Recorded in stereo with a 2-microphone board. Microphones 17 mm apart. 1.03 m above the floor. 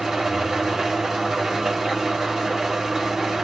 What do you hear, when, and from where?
0.0 s an engine running: 30° right (ahead or behind), 1.0 m